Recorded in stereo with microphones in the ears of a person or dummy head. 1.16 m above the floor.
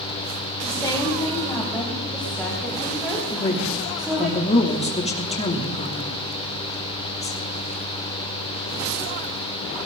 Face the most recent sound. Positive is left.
turn(degrees=25)  # may be behind; listen again after turning